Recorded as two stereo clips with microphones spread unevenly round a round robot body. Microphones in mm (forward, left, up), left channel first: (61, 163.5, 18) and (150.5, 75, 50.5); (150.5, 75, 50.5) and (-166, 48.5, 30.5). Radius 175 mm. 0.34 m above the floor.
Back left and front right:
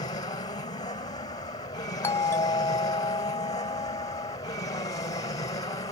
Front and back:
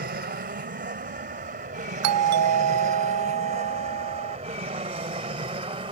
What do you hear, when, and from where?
0.0 s an aircraft: 140° left; by 5.9 s 120° left
2.0 s a doorbell: 165° right